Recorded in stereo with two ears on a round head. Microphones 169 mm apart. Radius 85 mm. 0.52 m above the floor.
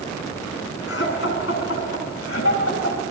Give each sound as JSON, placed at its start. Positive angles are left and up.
{"t": 0.9, "sound": "laughter", "side_deg": 65, "distance_m": 6.5}